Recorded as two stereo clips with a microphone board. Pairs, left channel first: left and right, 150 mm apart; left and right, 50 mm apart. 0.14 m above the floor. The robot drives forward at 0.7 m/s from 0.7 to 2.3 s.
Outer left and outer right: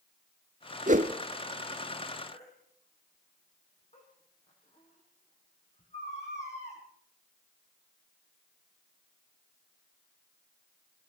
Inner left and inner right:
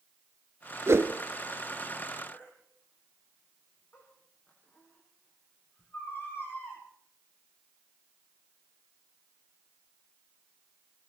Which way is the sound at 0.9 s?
55° right (ahead or behind).